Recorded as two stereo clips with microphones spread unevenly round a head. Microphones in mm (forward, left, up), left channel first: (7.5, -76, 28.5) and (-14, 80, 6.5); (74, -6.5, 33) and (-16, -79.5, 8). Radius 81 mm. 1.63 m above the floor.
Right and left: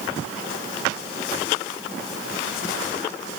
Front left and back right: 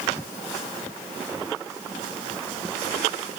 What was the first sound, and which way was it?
Only background noise.